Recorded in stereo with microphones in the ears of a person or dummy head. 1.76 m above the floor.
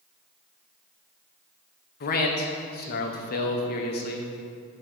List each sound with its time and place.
2.0 s a man speaking: 45° left (ahead or behind), 1.0 m